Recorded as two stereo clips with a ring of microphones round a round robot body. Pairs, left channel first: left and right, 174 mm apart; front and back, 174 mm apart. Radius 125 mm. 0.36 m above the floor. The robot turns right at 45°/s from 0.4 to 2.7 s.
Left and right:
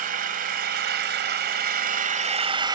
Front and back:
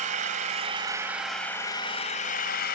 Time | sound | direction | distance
0.0 | an engine running | 130° right | 1.8 m